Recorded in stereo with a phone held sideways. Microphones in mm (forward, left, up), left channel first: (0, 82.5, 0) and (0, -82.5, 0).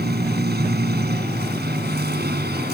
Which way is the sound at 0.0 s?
85° right.